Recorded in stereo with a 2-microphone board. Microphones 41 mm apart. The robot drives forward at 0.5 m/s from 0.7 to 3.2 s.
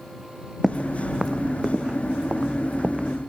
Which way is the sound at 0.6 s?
Centre (ahead or behind).